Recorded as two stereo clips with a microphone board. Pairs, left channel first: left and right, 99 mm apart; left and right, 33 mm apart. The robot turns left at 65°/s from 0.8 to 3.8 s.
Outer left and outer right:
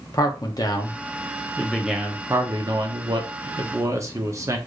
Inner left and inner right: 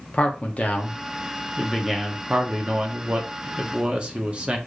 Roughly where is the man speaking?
Ahead left.